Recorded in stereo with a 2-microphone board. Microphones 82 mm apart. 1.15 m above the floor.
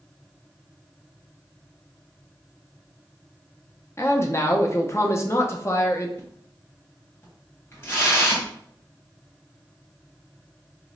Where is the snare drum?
I don't hear a snare drum.